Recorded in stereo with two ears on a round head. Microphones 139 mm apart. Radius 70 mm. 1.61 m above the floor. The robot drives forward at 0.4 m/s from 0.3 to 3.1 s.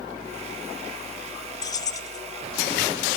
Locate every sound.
1.6 s keys jangling: 25° left (ahead or behind), 0.6 m